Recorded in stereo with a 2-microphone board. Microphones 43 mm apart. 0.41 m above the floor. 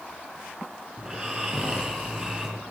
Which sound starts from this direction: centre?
Snoring, at 1.0 s.